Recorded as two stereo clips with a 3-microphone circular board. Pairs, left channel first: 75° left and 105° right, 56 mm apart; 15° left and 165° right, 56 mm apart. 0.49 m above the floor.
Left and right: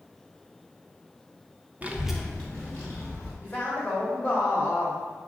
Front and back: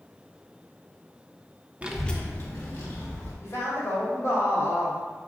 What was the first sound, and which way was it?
A child speaking, 130° right.